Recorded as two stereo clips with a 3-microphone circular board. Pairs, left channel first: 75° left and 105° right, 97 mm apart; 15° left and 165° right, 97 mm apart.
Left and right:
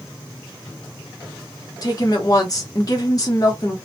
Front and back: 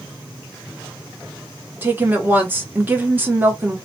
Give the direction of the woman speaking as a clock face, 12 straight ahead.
8 o'clock.